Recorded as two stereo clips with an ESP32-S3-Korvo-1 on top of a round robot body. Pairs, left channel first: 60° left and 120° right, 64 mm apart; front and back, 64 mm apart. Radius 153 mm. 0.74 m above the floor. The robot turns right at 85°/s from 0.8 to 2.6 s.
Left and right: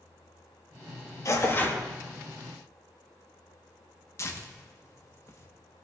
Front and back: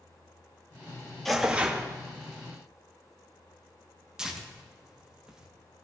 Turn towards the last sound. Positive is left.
turn(degrees=100)